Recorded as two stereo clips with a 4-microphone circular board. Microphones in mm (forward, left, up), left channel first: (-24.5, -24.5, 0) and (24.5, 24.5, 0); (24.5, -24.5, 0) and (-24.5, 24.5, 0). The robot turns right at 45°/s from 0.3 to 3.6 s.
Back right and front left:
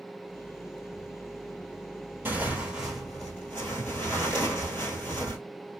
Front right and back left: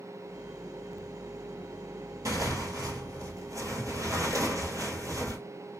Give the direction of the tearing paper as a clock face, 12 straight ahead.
9 o'clock.